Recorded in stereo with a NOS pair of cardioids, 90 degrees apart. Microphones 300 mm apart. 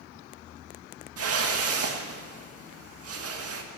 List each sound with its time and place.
1.2 s a whoosh: 50° right, 1.9 m